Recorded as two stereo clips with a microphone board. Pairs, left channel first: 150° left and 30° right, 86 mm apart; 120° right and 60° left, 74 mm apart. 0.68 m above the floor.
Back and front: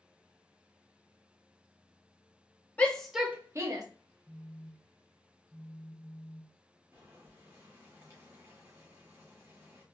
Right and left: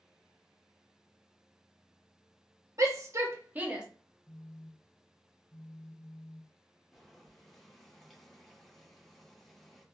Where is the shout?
85° left, 1.1 m; by 3.9 s 15° right, 1.2 m.